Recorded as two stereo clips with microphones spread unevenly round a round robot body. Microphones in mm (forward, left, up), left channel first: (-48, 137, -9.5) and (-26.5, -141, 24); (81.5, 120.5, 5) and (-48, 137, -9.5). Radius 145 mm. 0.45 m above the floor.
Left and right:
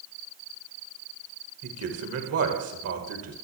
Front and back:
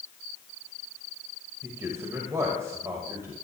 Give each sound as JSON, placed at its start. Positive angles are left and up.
{"t": 1.6, "sound": "a man speaking", "azimuth_deg": -115, "distance_m": 1.7}